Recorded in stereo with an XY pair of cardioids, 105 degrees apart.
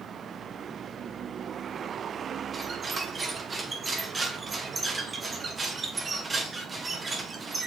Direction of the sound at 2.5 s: 30° right.